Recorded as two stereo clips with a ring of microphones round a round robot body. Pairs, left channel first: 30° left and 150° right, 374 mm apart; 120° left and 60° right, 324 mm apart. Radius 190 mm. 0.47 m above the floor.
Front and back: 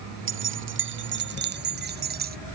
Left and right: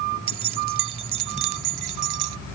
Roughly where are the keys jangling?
Right.